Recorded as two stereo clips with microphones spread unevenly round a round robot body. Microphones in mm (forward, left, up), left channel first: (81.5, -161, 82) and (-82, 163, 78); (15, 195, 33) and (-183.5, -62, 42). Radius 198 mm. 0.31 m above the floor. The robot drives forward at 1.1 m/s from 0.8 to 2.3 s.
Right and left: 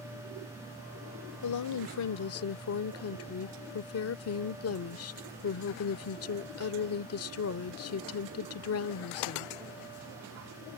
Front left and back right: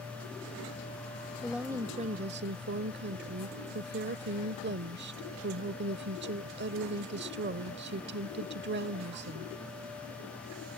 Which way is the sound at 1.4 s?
35° right.